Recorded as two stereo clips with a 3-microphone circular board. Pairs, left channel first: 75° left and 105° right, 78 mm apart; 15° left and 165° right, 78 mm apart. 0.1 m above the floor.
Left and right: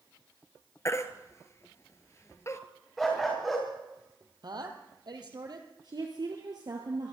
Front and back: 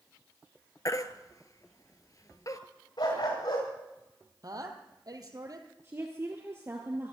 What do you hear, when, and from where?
0.8 s a baby crying: 35° left, 1.0 m
3.0 s a dog barking: 15° right, 5.5 m
4.4 s a woman speaking: 130° right, 2.5 m
5.8 s a woman speaking: 115° right, 2 m